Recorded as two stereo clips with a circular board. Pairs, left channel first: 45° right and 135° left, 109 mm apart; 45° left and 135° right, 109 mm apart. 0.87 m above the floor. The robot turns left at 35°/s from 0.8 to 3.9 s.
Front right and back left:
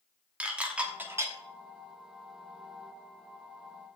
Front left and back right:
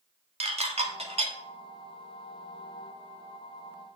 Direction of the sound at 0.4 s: 145° right.